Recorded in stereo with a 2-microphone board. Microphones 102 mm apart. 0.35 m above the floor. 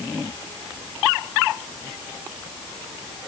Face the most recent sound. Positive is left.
No sound to turn to.